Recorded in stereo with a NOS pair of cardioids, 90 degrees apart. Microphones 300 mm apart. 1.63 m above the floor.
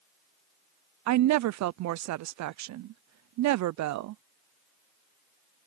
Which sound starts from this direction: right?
A woman speaking, at 1.1 s.